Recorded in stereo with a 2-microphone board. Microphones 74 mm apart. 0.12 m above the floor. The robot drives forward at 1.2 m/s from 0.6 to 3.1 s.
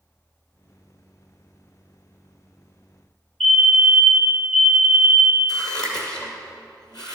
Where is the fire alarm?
10° left (ahead or behind), 3 m.